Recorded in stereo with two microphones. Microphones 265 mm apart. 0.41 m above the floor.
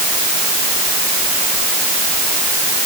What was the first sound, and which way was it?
Only background noise.